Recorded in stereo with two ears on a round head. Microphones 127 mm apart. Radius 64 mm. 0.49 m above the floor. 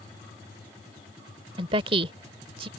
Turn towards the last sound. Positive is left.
turn(degrees=-40)  # may be behind; listen again after turning